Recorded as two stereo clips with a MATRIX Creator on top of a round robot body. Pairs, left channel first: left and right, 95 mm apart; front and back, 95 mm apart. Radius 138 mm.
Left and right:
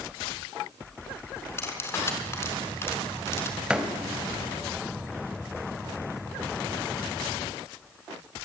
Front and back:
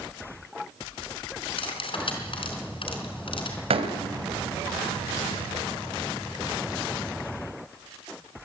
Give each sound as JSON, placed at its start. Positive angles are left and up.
{"t": 1.6, "sound": "cutlery clinking", "azimuth_deg": 30, "distance_m": 4.0}
{"t": 3.7, "sound": "a door slam", "azimuth_deg": -170, "distance_m": 3.0}